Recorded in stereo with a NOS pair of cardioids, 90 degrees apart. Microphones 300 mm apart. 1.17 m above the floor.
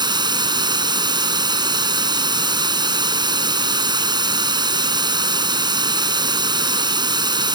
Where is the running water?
15° right.